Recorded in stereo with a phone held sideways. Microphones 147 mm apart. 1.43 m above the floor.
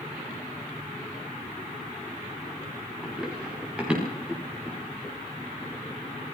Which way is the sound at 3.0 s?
5° right (ahead or behind).